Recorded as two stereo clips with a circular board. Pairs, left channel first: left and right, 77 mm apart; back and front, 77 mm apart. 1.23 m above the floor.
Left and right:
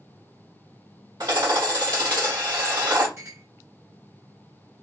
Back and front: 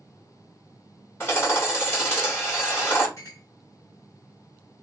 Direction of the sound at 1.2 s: 120° right.